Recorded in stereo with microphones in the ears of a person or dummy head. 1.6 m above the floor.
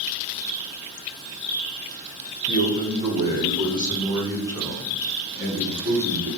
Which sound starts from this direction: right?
A man speaking, at 2.5 s.